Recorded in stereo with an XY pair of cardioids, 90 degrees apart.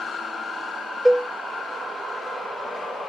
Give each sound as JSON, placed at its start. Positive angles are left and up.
{"t": 1.1, "sound": "a cowbell", "azimuth_deg": -15, "distance_m": 0.8}